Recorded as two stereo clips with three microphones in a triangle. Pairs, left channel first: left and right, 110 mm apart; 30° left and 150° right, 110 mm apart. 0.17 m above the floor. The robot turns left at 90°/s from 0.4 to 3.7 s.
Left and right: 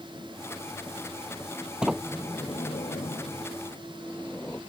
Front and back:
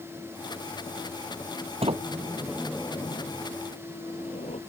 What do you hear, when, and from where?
1.8 s a sliding door: 170° right; by 4.6 s 20° left